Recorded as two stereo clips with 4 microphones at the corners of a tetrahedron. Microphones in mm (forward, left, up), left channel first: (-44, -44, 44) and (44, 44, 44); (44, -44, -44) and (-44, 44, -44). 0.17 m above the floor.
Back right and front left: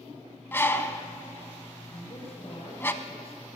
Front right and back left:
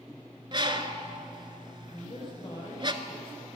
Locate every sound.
0.5 s a bird: 160° left, 0.8 m
1.9 s a man speaking: 95° right, 5 m